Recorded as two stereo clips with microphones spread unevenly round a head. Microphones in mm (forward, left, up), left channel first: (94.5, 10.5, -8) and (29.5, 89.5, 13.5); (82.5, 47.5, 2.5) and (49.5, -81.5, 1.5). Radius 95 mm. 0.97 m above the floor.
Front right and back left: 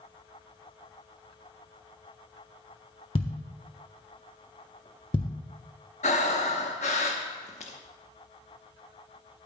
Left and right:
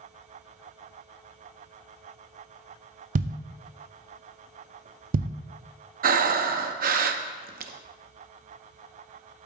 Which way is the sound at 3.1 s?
110° right.